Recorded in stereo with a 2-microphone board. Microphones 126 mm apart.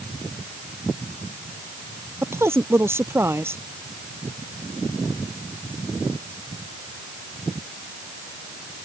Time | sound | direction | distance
2.2 | a woman speaking | 20° right (ahead or behind) | ?